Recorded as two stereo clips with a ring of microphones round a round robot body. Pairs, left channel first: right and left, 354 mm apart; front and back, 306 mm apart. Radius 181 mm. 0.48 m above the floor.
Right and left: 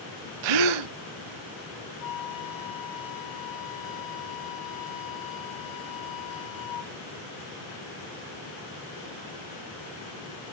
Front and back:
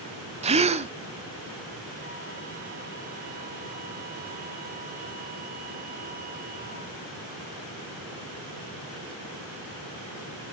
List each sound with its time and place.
0.4 s a gasp: 110° left, 0.7 m
2.0 s a flute: 115° right, 2 m